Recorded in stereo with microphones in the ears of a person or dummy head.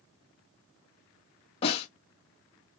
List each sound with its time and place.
1.6 s a snare drum: 30° left (ahead or behind), 2 m